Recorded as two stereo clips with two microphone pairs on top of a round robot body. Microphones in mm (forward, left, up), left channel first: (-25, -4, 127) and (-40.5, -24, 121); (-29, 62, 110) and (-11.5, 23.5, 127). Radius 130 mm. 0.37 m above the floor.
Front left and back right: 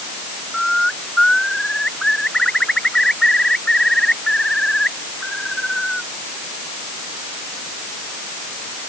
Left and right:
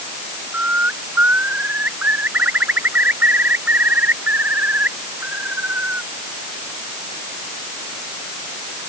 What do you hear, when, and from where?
0.5 s a bird: 15° right